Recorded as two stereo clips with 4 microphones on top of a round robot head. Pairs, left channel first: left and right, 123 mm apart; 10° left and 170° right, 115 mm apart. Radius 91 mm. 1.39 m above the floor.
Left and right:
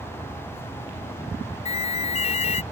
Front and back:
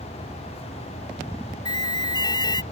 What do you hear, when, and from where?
1.6 s an alarm: 60° left